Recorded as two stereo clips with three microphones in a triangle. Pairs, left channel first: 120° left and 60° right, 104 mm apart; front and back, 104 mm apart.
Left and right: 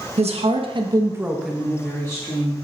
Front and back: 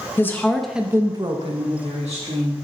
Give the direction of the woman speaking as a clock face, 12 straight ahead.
2 o'clock.